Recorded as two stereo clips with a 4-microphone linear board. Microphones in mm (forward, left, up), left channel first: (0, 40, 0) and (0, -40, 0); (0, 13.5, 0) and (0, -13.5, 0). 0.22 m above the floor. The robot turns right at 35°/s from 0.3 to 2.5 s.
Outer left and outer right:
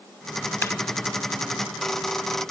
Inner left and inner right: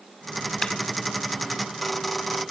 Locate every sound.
0.6 s a clap: 35° left (ahead or behind), 1.2 m; by 0.7 s 30° left (ahead or behind), 1.2 m